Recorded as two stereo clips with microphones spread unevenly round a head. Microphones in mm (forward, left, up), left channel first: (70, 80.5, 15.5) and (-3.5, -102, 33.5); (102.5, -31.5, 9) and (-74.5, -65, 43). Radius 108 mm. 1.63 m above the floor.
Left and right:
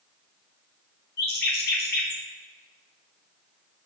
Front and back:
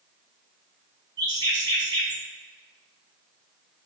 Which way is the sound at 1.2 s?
120° left.